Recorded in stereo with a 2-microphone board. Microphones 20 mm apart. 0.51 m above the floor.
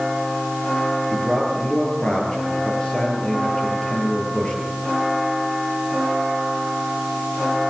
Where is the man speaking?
55° left (ahead or behind), 9.5 m.